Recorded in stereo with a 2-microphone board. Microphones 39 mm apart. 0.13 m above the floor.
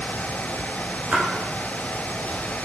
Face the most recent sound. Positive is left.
turn(degrees=-35)  # may be behind; listen again after turning